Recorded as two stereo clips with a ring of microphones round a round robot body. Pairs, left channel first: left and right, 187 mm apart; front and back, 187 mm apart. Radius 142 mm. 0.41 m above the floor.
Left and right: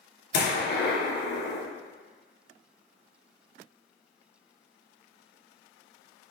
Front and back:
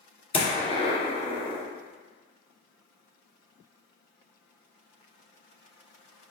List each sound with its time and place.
0.3 s a gunshot: 60° left, 2 m